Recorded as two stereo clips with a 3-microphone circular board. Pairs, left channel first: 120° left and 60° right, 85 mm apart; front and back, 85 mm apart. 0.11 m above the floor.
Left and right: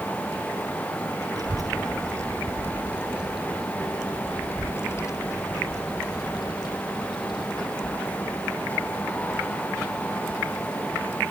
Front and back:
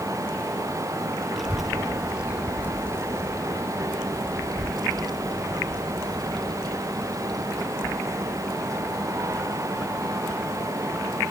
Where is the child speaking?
90° right; by 11.2 s 135° left.